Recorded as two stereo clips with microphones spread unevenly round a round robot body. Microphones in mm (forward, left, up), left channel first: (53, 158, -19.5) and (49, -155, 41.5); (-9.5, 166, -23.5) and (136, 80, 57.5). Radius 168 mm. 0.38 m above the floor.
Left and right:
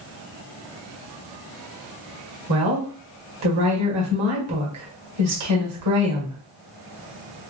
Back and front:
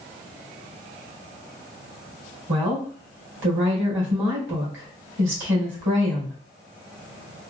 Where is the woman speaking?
60° right, 2 m.